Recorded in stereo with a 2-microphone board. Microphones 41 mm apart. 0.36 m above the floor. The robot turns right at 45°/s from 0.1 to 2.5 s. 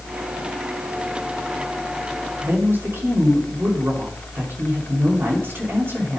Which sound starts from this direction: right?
A woman speaking, at 2.4 s.